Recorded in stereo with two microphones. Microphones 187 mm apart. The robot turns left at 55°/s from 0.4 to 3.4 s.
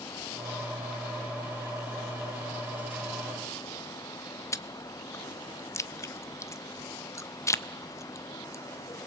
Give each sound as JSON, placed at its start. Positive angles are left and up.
{"t": 4.5, "sound": "chewing", "side_deg": 15, "distance_m": 0.6}